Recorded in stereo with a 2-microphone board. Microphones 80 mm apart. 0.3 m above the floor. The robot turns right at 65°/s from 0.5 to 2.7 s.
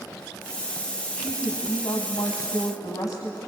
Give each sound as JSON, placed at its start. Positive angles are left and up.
{"t": 1.1, "sound": "a woman speaking", "azimuth_deg": 15, "distance_m": 2.5}